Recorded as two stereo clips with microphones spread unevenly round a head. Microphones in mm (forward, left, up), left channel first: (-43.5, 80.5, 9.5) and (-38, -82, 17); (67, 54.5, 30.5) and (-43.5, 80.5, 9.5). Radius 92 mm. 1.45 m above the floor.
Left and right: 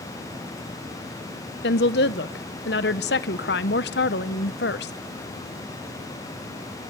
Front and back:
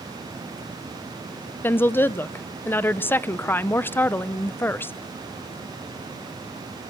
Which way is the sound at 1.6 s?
55° left.